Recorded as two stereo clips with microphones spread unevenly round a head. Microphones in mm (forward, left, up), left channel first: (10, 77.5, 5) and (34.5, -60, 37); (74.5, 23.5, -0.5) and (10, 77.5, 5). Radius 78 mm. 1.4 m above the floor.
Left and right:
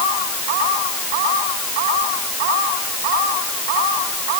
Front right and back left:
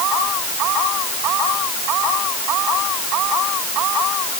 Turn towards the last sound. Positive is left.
No sound to turn to.